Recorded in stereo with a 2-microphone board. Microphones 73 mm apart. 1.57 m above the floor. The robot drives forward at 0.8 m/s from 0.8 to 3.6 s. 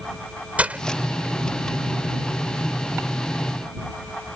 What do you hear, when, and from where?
0.6 s breaking glass: 20° right (ahead or behind)